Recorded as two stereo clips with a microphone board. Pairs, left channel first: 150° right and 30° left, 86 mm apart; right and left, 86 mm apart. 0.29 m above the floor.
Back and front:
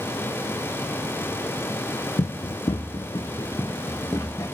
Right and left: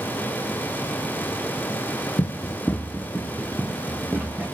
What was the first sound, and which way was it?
Running footsteps, 125° right.